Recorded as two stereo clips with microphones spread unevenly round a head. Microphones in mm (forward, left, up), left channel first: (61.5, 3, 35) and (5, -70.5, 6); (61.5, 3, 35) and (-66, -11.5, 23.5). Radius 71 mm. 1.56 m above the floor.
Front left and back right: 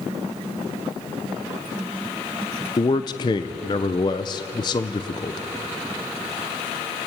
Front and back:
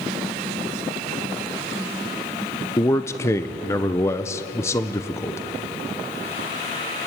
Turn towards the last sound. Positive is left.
turn(degrees=70)